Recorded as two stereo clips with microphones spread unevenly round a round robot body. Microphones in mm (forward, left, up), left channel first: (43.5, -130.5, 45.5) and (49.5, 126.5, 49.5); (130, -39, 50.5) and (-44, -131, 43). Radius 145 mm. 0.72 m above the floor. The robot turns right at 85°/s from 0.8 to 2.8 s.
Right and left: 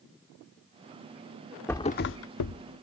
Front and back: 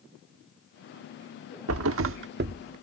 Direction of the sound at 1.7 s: 175° right.